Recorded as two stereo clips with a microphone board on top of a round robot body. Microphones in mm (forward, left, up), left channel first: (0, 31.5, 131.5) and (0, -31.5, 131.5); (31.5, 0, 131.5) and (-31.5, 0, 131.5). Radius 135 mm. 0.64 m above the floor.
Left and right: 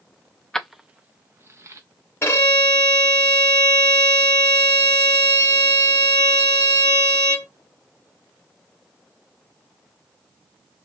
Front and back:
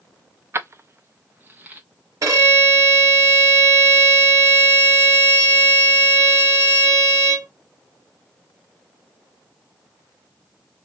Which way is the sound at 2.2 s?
145° left.